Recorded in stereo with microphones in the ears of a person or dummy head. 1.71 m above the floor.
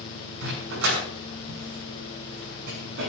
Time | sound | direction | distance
0.4 | a dog barking | 60° right (ahead or behind) | 6.5 m